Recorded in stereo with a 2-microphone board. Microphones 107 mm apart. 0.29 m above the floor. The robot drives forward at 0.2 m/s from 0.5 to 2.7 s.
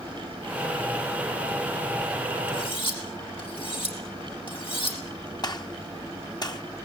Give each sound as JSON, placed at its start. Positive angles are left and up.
{"t": 2.5, "sound": "cutlery clinking", "side_deg": 50, "distance_m": 6.5}
{"t": 5.4, "sound": "a gunshot", "side_deg": 40, "distance_m": 1.1}